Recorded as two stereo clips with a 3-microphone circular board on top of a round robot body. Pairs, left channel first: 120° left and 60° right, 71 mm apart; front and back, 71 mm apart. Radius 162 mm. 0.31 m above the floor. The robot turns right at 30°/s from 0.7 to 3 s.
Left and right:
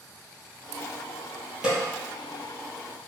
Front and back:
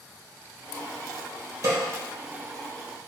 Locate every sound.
1.6 s a snare drum: 135° right, 3.5 m; by 1.8 s 130° right, 3.5 m